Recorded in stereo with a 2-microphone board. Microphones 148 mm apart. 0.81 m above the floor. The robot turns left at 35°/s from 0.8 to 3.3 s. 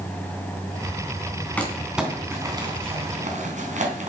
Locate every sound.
1.6 s crumpling: 10° left (ahead or behind), 3 m; by 4.1 s 50° right (ahead or behind), 3 m